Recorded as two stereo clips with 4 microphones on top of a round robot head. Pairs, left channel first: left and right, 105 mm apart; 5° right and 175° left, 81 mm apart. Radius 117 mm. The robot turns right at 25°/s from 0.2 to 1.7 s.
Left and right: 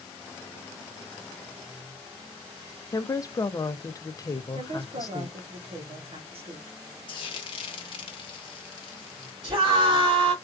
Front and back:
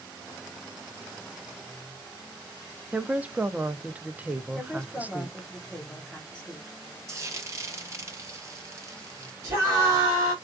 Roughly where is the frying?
Behind left.